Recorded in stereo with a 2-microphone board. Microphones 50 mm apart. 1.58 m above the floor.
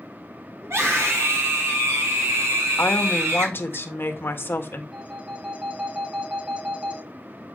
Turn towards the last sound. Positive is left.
turn(degrees=-25)  # may be behind; listen again after turning